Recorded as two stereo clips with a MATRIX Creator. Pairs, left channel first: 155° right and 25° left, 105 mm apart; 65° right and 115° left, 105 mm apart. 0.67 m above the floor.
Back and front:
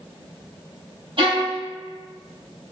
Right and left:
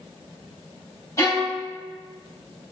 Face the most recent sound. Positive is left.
turn(degrees=-10)